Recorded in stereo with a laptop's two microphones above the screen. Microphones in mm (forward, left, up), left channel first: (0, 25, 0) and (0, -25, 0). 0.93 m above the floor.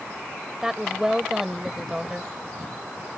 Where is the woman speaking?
10° right (ahead or behind).